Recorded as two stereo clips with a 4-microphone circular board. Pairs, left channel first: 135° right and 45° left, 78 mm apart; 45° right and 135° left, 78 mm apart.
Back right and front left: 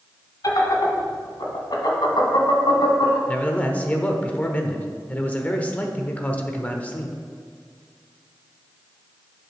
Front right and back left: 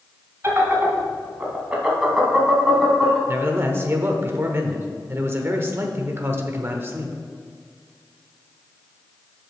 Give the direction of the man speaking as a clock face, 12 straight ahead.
6 o'clock.